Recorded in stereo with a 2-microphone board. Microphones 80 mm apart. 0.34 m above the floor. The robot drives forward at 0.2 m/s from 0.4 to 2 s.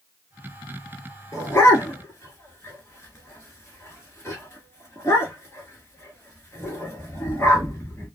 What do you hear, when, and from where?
1.3 s a dog barking: 40° left (ahead or behind), 1.0 m; by 8.1 s 35° left (ahead or behind), 1.1 m